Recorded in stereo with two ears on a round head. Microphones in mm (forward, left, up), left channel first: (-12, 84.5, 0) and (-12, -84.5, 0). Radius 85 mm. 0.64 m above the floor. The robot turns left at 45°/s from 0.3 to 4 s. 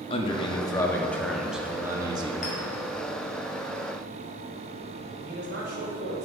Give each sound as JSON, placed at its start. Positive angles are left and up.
{"t": 0.1, "sound": "a man speaking", "azimuth_deg": 50, "distance_m": 0.8}
{"t": 2.4, "sound": "a clink", "side_deg": 45, "distance_m": 2.5}
{"t": 5.2, "sound": "a man speaking", "side_deg": -60, "distance_m": 2.5}